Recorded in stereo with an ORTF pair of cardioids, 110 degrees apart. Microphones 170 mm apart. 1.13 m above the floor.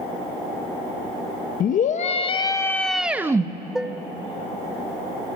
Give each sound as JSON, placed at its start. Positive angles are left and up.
{"t": 1.6, "sound": "a scream", "azimuth_deg": 55, "distance_m": 1.4}
{"t": 3.8, "sound": "dishes clattering", "azimuth_deg": -5, "distance_m": 0.6}